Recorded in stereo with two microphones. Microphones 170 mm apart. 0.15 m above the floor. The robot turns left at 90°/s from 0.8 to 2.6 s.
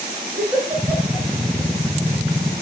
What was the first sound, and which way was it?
A giggle, 15° right (ahead or behind).